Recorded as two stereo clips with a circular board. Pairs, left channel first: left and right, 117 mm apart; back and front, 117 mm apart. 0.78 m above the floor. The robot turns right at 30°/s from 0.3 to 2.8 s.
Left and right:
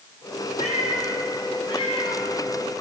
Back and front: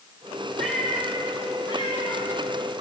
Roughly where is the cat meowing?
Left.